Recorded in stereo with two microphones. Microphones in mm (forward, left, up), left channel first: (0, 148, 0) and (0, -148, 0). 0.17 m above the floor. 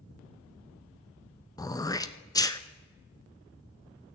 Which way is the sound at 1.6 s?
15° left (ahead or behind).